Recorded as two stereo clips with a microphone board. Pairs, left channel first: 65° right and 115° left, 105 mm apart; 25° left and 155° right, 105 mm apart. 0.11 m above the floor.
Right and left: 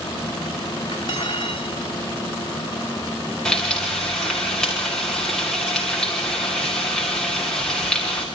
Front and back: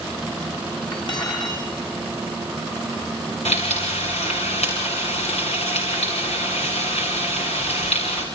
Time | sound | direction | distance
0.9 | cutlery clinking | 20° right | 5.5 m
3.5 | frying | 15° left | 5.5 m